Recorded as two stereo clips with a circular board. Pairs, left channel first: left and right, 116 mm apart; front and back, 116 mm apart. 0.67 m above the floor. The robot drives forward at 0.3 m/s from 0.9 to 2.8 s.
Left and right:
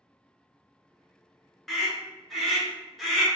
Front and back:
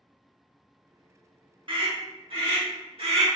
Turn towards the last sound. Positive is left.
turn(degrees=180)